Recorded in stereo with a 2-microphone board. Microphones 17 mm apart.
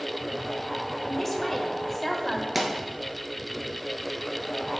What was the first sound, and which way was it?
A man speaking, 10° left (ahead or behind).